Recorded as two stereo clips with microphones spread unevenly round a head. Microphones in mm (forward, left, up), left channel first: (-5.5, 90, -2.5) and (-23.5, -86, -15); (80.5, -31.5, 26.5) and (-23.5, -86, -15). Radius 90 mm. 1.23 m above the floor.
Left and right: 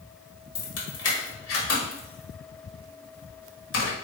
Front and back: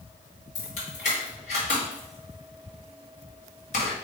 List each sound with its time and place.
0.6 s keys jangling: 70° left, 1.5 m